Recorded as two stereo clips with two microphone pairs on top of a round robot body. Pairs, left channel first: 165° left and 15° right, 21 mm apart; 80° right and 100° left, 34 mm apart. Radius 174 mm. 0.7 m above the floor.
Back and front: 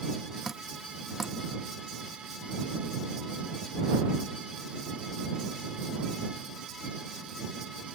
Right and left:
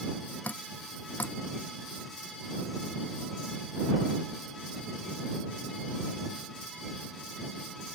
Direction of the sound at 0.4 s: 95° right.